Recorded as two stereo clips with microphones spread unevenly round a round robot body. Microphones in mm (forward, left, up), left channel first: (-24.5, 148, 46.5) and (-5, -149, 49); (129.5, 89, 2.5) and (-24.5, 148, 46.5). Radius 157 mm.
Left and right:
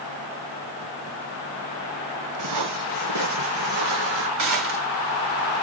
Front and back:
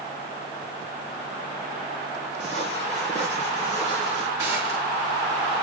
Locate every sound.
2.4 s footsteps: 115° right, 3 m; by 4.3 s 100° right, 3.5 m
4.4 s a gunshot: 115° right, 4 m